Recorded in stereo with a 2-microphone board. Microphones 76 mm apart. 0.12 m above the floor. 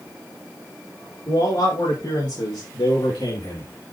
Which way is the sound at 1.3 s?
75° left (ahead or behind).